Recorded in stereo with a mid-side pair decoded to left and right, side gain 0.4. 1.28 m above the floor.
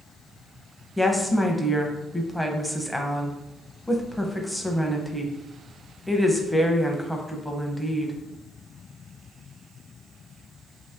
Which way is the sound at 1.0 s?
Straight ahead.